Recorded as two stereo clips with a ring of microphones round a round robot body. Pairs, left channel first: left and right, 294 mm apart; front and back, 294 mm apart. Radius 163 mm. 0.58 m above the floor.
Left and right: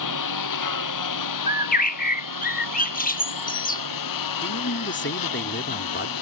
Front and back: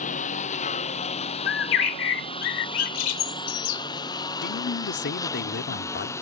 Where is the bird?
25° left.